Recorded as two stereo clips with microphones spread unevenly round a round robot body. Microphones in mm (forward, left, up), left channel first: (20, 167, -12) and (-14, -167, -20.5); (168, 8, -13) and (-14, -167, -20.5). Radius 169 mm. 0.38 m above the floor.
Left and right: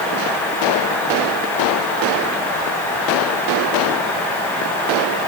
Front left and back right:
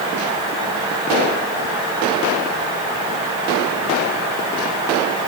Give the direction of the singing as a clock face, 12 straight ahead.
No singing in this recording.